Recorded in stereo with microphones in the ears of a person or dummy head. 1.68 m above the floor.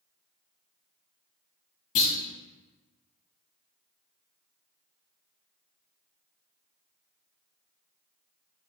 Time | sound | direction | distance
1.9 | a clunk | 40° left (ahead or behind) | 1.3 m